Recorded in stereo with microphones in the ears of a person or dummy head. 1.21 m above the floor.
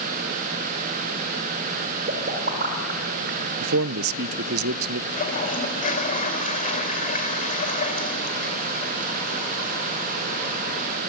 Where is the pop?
55° right (ahead or behind), 4 m.